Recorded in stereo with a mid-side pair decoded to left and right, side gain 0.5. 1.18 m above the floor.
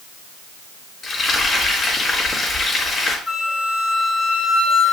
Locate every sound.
1.0 s frying: 30° left, 4 m
3.3 s a flute: 10° left, 4.5 m